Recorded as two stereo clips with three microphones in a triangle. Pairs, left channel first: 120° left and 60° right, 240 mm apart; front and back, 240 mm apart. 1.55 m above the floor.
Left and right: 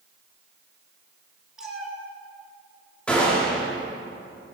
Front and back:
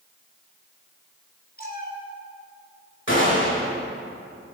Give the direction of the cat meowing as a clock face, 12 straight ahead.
11 o'clock.